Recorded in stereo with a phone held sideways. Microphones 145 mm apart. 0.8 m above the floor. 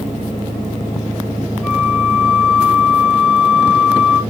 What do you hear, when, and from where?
1.6 s a flute: 5° left (ahead or behind), 1.4 m